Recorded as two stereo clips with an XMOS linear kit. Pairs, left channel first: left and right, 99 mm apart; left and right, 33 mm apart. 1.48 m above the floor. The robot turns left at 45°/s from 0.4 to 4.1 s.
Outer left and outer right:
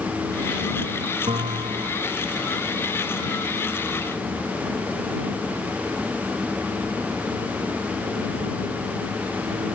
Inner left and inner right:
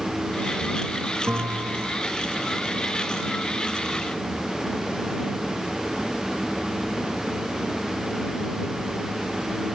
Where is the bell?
80° right; by 2.0 s 115° right.